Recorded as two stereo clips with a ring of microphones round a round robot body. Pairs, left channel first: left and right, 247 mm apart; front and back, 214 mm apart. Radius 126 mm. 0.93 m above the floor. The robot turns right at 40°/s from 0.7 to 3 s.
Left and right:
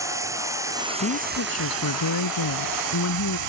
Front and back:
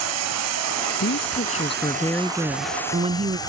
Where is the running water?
170° right; by 3.5 s 75° right.